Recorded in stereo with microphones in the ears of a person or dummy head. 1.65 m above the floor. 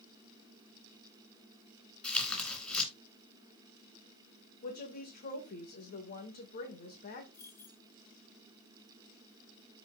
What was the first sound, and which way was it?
Tearing paper, 10° left (ahead or behind).